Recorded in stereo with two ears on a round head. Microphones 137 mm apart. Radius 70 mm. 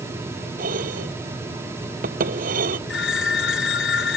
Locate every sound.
0.6 s dishes clattering: 65° right (ahead or behind)
2.9 s a phone ringing: 80° left